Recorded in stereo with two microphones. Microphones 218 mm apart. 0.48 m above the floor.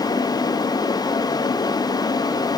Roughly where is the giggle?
I don't hear a giggle.